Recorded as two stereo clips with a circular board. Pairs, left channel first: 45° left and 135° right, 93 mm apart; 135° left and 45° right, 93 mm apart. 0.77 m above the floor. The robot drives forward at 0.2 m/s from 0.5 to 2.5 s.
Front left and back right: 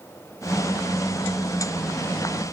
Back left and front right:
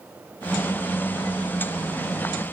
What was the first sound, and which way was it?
Only background noise.